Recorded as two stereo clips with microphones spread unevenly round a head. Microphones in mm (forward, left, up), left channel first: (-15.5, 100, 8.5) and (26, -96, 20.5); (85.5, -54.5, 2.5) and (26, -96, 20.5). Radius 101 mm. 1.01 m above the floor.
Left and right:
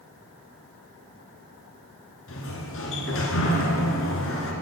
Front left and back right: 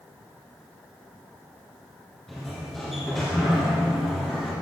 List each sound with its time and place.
2.3 s a sliding door: 125° left, 2.5 m